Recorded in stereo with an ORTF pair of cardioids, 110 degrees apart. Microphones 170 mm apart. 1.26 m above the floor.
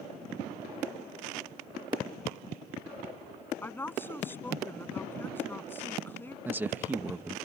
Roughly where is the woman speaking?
Ahead.